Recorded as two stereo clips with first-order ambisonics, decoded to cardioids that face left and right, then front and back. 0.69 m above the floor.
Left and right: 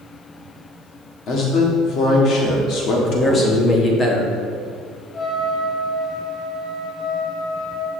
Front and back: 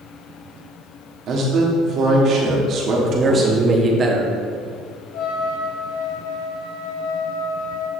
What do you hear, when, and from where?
1.3 s a man speaking: 135° left, 1.4 m
3.0 s a man speaking: 140° left, 0.9 m
5.1 s a trumpet: 25° left, 0.9 m